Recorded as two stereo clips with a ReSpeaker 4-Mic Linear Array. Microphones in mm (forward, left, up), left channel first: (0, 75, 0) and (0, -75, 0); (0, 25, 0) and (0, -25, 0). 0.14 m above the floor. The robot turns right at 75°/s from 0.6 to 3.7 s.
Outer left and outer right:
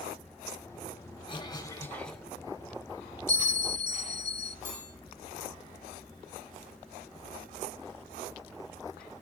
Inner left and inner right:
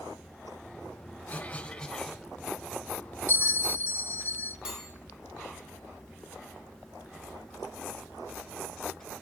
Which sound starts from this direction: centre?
A chime, at 4.7 s.